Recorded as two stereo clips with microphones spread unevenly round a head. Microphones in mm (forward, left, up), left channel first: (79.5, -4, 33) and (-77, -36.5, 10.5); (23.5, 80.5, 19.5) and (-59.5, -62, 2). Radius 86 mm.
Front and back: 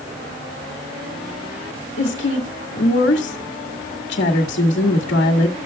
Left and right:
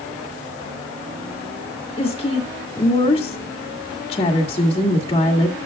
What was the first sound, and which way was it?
A woman speaking, straight ahead.